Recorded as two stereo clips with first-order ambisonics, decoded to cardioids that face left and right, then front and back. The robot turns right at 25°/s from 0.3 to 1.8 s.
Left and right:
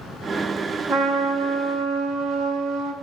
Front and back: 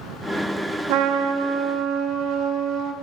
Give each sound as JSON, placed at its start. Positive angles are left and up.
{"t": 0.9, "sound": "a trumpet", "azimuth_deg": -160, "distance_m": 0.7}